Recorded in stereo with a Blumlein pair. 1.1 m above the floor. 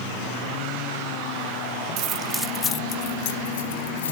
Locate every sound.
2.0 s keys jangling: 40° right, 0.7 m; by 4.1 s 65° left, 1.8 m